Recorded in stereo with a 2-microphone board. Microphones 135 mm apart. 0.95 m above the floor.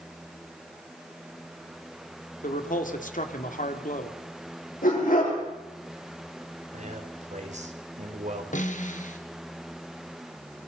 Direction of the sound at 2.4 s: 75° left (ahead or behind).